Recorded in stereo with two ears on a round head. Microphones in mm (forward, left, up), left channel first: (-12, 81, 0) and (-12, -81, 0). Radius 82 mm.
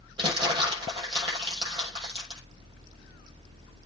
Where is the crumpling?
25° right (ahead or behind), 6.5 m.